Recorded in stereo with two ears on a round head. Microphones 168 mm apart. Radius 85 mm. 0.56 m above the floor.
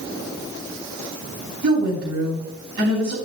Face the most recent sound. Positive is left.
turn(degrees=-65)  # may be behind; listen again after turning